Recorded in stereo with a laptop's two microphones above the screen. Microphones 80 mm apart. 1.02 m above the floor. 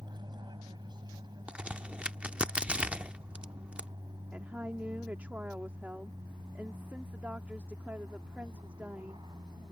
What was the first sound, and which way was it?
An aircraft, 60° right (ahead or behind).